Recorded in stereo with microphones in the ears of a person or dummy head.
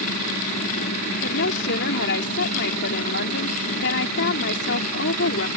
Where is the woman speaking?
65° left (ahead or behind).